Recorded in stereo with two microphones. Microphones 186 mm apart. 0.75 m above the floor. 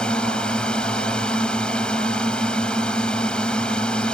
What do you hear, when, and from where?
0.0 s a drone: 5° left (ahead or behind)